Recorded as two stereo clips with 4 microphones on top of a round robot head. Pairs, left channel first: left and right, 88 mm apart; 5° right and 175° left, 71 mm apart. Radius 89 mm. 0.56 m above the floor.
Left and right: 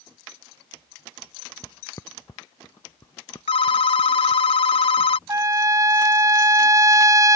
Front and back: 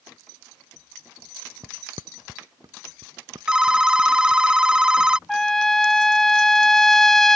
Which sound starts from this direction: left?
A phone ringing, at 3.5 s.